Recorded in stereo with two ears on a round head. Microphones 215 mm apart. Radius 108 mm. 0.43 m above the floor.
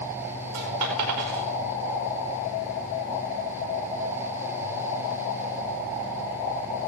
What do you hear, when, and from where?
0.5 s a dropped coin: 80° right, 5 m